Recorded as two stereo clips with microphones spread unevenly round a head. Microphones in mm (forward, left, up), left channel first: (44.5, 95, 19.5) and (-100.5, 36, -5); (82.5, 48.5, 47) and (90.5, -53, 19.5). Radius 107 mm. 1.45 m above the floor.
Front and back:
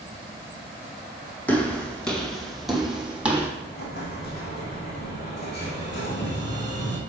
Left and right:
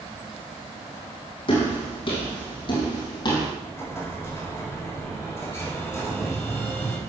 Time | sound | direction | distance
1.5 | footsteps | 100° left | 3 m
3.6 | an explosion | 30° left | 3 m